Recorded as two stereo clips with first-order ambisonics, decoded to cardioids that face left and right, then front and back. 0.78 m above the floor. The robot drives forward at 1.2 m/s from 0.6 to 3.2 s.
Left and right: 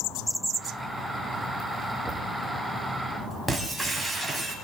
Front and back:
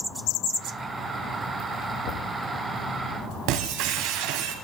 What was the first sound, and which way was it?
Knocking, 10° right.